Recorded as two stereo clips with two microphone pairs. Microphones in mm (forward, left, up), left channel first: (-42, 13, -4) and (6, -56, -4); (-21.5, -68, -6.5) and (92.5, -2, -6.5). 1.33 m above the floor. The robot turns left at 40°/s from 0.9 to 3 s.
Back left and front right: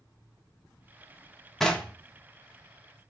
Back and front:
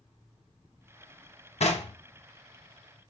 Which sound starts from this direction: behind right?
Knocking, at 1.6 s.